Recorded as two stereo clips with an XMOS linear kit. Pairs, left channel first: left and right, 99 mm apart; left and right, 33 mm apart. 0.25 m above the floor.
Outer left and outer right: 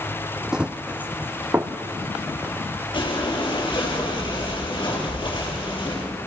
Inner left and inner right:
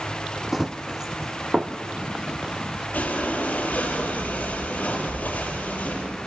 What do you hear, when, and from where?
0.5 s running footsteps: 5° right (ahead or behind), 0.7 m; by 2.8 s 25° right (ahead or behind), 2.5 m
2.9 s breathing: 55° left (ahead or behind), 6 m